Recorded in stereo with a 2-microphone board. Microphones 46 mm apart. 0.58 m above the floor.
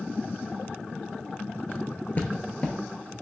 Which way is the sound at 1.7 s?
40° left (ahead or behind).